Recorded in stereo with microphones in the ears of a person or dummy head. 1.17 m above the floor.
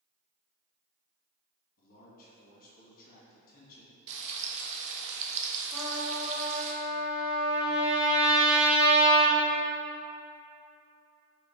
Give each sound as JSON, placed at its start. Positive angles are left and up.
{"t": 1.8, "sound": "a man speaking", "side_deg": 45, "distance_m": 2.0}
{"t": 4.1, "sound": "frying", "side_deg": -40, "distance_m": 1.1}
{"t": 5.7, "sound": "a trumpet", "side_deg": -5, "distance_m": 1.7}